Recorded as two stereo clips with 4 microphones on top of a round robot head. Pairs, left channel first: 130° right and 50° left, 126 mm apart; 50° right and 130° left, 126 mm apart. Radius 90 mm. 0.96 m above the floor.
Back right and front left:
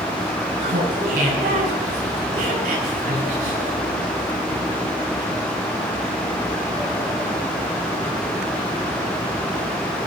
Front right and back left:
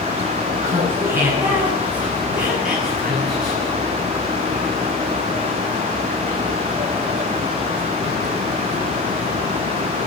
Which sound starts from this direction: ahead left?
Laughter, at 0.6 s.